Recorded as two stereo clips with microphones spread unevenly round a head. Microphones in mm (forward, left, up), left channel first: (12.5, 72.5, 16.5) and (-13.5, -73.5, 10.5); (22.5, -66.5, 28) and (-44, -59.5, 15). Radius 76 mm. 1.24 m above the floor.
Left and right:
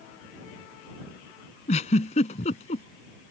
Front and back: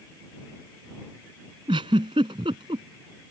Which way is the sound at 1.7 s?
125° left.